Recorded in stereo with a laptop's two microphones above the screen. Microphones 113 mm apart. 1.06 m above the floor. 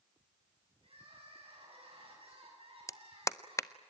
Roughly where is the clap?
Left.